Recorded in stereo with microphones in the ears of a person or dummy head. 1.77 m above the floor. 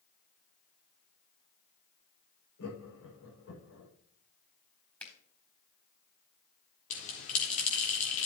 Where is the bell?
40° left (ahead or behind), 4 m.